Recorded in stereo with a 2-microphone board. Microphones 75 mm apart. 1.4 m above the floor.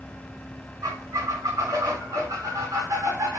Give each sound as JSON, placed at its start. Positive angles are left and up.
{"t": 0.8, "sound": "a squeak", "side_deg": -45, "distance_m": 1.8}